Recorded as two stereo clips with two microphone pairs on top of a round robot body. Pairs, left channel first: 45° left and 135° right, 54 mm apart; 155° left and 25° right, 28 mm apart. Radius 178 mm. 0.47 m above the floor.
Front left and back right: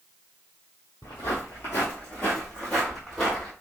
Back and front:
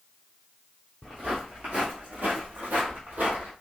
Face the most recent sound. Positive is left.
turn(degrees=-40)